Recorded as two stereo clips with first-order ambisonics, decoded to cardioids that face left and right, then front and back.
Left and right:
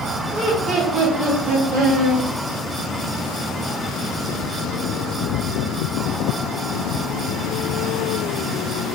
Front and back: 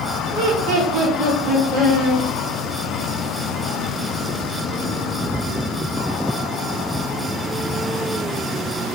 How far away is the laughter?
About 1.7 m.